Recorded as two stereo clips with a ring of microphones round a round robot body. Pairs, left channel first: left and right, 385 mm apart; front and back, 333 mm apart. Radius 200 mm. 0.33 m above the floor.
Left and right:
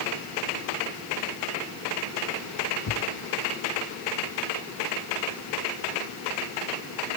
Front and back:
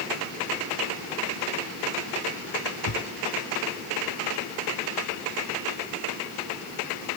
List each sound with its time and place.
2.9 s a thud: 35° left